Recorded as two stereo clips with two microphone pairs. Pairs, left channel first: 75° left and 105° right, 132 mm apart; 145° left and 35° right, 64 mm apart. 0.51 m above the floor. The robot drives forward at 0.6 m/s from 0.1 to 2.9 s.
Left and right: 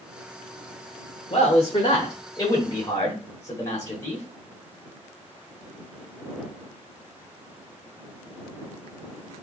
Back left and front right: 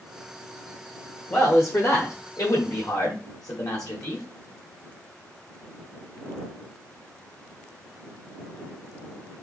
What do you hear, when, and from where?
1.3 s a man speaking: 100° left, 1.3 m; by 4.2 s 135° left, 1.7 m